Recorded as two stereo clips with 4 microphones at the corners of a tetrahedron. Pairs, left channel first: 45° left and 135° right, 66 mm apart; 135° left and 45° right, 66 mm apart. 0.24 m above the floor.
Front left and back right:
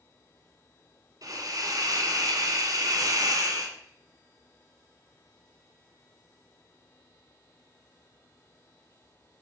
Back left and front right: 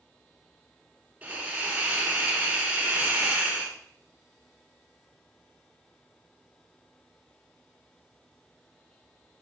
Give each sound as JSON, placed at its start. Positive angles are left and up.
{"t": 1.2, "sound": "a hiss", "azimuth_deg": -115, "distance_m": 2.0}